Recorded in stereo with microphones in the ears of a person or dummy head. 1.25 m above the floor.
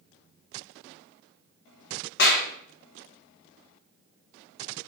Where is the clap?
50° left (ahead or behind), 0.9 m.